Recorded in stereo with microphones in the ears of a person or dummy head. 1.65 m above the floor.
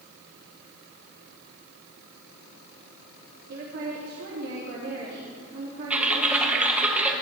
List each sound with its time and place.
3.5 s a woman speaking: 65° right (ahead or behind), 3 m
5.9 s typing on a keyboard: centre (ahead or behind), 1.1 m